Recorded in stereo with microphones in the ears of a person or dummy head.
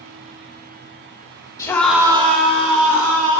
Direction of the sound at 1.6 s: 15° left (ahead or behind).